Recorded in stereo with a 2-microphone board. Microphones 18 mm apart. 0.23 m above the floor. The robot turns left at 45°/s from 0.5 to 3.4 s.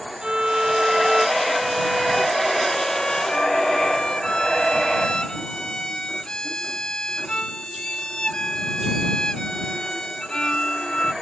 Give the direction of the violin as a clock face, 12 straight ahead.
4 o'clock.